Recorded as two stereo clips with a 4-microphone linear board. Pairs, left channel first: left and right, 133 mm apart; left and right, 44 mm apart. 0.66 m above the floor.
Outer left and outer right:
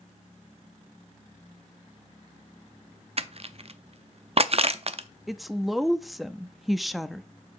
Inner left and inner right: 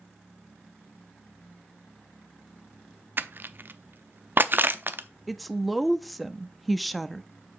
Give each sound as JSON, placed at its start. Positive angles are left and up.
{"t": 3.2, "sound": "crushing", "side_deg": -50, "distance_m": 0.5}
{"t": 5.3, "sound": "a woman speaking", "side_deg": 0, "distance_m": 0.5}